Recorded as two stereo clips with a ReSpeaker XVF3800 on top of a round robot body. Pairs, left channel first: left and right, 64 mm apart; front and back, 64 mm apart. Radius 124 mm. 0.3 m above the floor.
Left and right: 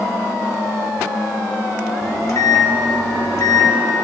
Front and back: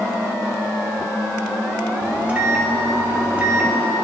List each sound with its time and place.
2.0 s a microwave: 115° left, 1.7 m